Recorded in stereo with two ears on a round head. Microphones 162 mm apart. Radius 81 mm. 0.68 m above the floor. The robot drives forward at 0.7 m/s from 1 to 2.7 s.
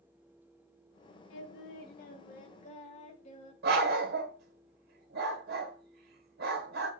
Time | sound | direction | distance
1.3 | singing | 75° left (ahead or behind) | 1.1 m
3.6 | a dog barking | 60° right (ahead or behind) | 1.4 m